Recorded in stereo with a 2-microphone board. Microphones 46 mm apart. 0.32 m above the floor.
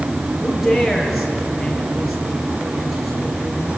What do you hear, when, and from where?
0.4 s a man speaking: centre (ahead or behind), 6.5 m